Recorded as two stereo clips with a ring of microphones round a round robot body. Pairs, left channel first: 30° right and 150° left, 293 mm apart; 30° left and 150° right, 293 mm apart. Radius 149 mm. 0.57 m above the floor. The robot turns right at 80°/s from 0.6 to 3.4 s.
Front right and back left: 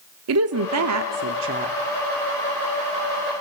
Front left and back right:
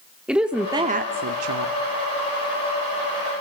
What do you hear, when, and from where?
0.3 s a woman speaking: 125° left, 1.0 m; by 1.8 s 145° right, 1.0 m